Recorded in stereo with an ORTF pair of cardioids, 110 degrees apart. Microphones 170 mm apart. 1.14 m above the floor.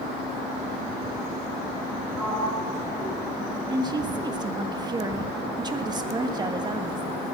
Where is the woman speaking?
25° right, 1.4 m.